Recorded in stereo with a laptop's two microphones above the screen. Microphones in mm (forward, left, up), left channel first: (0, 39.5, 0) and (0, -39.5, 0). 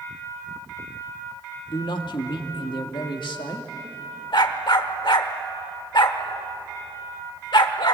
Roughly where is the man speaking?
Left.